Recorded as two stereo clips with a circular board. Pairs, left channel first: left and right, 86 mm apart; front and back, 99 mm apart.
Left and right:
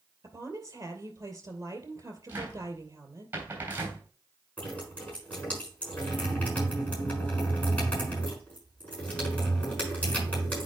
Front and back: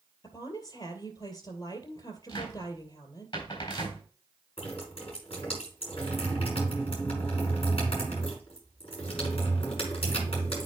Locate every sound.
0.2 s a woman speaking: 40° right, 2.5 m
2.3 s a cupboard door: 20° right, 3 m
4.6 s dripping: 15° left, 5.5 m